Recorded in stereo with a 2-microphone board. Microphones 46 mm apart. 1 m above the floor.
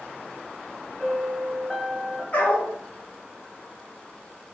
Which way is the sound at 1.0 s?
Centre (ahead or behind).